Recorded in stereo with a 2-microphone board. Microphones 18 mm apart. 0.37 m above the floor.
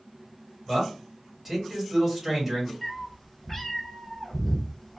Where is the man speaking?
20° right (ahead or behind), 1.8 m.